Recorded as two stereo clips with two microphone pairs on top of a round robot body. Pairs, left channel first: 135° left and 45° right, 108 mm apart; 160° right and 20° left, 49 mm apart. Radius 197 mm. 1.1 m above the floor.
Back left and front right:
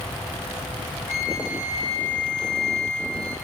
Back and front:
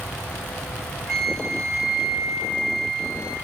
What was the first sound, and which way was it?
A flute, 120° left.